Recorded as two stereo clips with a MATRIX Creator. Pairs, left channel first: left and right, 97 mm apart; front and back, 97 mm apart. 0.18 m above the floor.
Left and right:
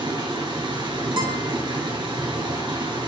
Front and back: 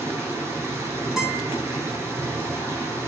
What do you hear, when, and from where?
0.0 s running water: 125° right, 1.6 m
1.2 s a guitar: 95° right, 1.8 m